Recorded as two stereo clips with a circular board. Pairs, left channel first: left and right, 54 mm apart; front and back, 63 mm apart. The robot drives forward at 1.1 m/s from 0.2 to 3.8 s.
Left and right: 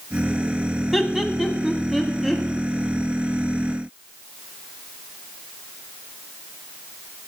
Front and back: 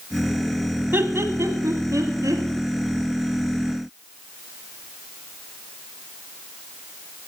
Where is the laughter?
175° right, 1.3 m; by 2.4 s straight behind, 2.5 m.